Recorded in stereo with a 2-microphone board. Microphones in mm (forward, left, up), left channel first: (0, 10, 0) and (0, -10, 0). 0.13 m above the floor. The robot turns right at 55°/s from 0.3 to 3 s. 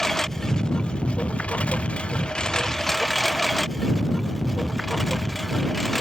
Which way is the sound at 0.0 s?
25° left.